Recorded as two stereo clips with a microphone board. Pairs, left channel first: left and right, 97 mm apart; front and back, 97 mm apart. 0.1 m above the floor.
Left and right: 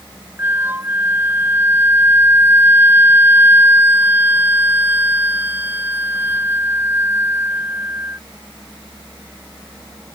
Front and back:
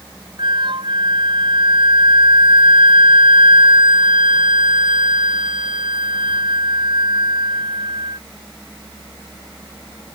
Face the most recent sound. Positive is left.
turn(degrees=-155)